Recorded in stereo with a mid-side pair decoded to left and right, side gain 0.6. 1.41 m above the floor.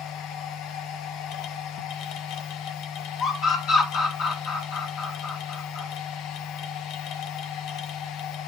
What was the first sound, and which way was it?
A machine running, 65° left.